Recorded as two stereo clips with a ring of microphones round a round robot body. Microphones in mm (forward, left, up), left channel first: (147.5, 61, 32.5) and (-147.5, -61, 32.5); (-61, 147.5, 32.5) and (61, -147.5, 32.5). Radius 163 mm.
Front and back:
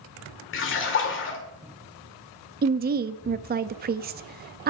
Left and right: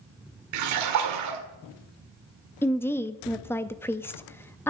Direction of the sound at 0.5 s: 30° right.